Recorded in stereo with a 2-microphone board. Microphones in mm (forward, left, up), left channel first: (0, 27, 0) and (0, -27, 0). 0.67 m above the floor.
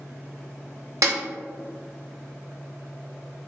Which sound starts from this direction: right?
A snare drum, at 1.0 s.